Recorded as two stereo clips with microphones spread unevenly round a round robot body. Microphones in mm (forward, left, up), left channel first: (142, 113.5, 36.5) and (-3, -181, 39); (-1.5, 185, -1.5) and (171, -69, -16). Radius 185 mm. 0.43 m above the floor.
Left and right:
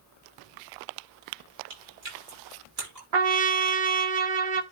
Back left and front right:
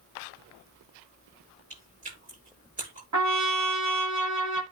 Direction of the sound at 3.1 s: 105° right.